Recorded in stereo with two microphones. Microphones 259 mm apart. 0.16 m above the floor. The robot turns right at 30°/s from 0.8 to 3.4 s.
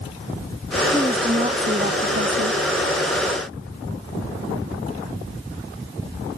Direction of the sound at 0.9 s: 170° right.